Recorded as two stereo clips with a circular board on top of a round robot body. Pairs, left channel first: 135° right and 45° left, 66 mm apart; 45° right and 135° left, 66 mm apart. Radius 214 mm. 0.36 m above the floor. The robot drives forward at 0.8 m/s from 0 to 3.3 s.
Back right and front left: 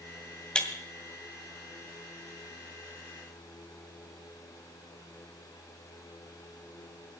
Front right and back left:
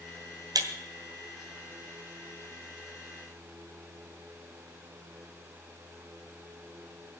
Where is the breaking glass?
150° left, 2 m.